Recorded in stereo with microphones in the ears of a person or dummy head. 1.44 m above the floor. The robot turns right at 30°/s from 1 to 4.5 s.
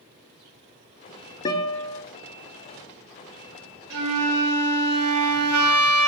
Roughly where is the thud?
I don't hear a thud.